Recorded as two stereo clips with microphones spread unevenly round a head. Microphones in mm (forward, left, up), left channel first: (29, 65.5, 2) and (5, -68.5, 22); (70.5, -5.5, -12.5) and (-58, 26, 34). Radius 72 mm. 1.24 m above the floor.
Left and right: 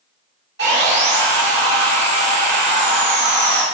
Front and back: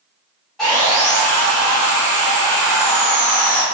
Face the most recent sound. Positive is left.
turn(degrees=-100)